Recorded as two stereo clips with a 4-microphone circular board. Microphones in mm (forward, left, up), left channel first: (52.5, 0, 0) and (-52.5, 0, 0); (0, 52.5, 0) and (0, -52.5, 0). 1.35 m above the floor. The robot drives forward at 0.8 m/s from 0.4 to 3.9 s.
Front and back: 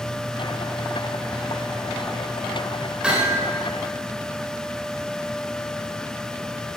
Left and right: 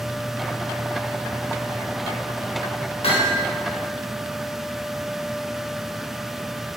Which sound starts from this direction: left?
Hammering, at 3.0 s.